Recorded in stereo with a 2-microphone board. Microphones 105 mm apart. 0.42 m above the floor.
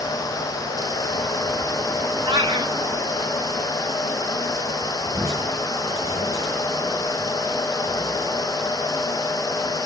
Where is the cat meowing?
40° right (ahead or behind), 1.7 m.